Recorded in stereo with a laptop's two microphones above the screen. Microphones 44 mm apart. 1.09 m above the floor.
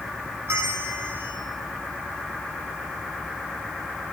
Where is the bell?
70° right (ahead or behind), 2.0 m.